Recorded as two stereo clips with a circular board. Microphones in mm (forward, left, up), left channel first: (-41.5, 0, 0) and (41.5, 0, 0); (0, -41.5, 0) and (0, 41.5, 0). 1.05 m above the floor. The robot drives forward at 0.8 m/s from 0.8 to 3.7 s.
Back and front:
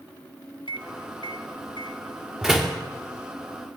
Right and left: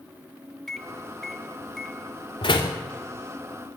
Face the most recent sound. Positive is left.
turn(degrees=-110)